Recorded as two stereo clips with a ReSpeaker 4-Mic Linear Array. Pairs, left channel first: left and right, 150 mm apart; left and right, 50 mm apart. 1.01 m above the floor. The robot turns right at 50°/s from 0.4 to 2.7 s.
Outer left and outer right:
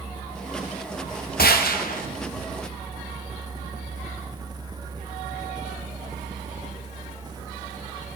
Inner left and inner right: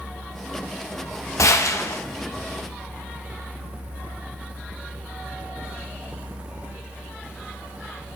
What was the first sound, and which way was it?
A gunshot, 85° left.